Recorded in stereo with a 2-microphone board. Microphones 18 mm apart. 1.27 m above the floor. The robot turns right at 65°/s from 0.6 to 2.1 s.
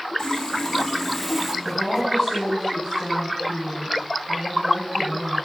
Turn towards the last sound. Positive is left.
turn(degrees=-5)  # may be behind; listen again after turning